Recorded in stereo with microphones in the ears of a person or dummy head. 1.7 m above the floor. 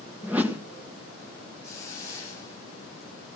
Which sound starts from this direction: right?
A hiss, at 1.6 s.